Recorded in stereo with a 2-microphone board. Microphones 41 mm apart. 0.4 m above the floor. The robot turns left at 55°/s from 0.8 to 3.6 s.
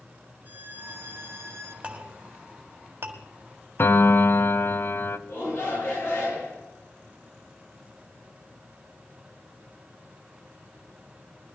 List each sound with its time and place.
0.5 s a violin: 50° right, 1.4 m; by 1.7 s 100° right, 1.4 m
1.8 s a clink: 25° right (ahead or behind), 1.6 m; by 3.2 s 65° right (ahead or behind), 1.6 m
3.8 s a piano: 55° left (ahead or behind), 0.7 m
5.3 s a shout: 75° left (ahead or behind), 7 m